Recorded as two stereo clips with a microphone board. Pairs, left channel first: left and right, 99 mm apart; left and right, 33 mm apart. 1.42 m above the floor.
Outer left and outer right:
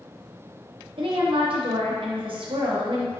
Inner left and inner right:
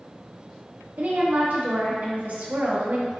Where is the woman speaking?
60° right (ahead or behind), 0.8 m.